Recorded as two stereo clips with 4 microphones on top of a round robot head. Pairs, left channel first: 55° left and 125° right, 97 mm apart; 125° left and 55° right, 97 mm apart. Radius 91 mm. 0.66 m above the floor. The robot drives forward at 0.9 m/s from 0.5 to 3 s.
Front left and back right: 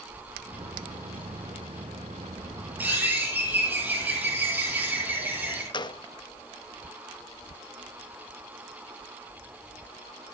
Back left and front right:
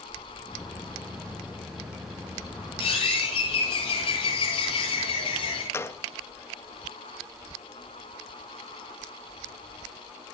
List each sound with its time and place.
2.8 s a bird: 160° left, 9.5 m
5.7 s a gunshot: 65° left, 1.1 m